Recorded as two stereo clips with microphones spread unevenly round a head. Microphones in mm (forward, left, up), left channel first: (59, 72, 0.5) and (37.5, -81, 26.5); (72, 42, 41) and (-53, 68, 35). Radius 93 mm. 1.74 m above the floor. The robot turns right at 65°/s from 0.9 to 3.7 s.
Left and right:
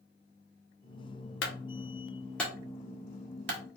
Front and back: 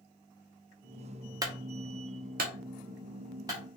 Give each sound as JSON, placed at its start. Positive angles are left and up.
{"t": 1.4, "sound": "a clunk", "azimuth_deg": 105, "distance_m": 0.9}